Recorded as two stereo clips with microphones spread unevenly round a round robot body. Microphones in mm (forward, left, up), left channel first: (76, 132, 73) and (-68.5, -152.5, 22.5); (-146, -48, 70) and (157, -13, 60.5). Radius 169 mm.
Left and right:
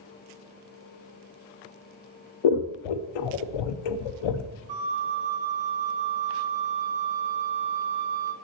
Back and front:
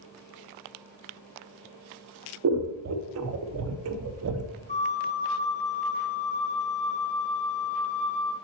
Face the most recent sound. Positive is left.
turn(degrees=-105)